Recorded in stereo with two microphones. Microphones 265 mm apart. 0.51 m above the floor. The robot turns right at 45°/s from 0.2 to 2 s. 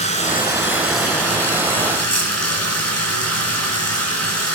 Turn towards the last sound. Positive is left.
turn(degrees=105)